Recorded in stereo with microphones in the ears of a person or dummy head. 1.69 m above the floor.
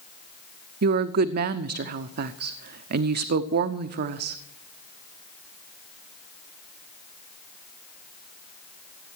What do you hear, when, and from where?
0.8 s a woman speaking: 50° right (ahead or behind), 0.6 m